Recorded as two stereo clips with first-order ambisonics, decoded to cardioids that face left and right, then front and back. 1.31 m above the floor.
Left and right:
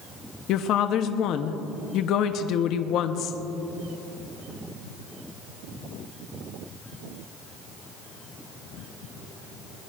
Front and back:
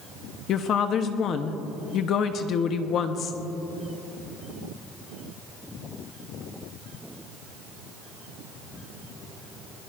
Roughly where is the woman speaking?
Ahead left.